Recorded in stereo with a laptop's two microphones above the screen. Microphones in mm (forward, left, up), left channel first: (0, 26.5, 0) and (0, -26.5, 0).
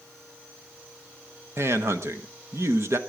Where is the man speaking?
60° right (ahead or behind), 1.3 m.